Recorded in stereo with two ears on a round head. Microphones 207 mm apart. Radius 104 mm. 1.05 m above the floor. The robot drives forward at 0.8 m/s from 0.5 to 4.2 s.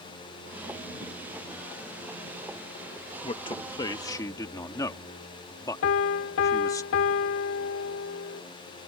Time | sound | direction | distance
3.2 | a man speaking | 25° left (ahead or behind) | ?
5.8 | a piano | 60° left (ahead or behind) | ?